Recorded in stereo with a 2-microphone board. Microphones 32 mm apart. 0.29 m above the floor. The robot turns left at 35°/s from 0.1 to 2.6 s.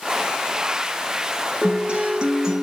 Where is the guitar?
130° right, 0.7 m; by 2.6 s 165° right, 0.7 m.